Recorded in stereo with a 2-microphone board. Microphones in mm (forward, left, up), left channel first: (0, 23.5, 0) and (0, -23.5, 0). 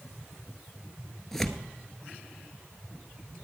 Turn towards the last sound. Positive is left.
turn(degrees=10)  # may be behind; listen again after turning